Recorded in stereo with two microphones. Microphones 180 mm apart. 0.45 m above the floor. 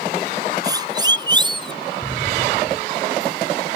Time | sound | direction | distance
0.6 | a siren | 20° right (ahead or behind) | ?
2.0 | an explosion | 20° left (ahead or behind) | ?